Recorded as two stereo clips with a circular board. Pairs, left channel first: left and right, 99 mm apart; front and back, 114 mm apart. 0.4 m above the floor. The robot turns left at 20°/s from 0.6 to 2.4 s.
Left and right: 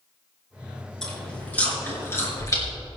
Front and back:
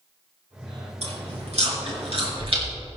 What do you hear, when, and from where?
1.0 s chewing: 175° left, 4.5 m; by 2.6 s 145° left, 4.5 m